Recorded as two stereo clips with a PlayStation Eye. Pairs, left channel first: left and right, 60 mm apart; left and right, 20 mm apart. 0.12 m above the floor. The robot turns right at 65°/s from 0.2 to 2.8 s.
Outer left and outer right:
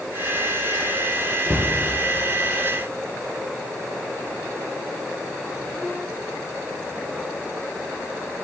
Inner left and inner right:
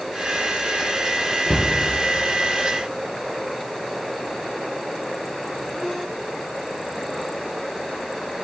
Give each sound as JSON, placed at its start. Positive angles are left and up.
{"t": 1.5, "sound": "a cupboard door", "side_deg": -45, "distance_m": 1.0}